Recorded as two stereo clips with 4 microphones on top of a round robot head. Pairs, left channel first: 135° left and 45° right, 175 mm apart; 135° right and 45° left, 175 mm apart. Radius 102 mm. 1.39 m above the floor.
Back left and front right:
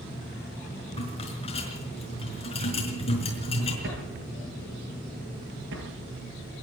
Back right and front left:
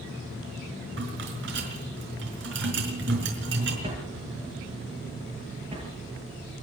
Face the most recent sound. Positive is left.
turn(degrees=-20)